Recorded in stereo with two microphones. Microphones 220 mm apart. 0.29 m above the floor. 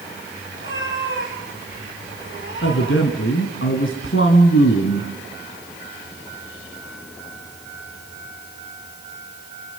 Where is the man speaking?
65° left (ahead or behind), 2.5 m.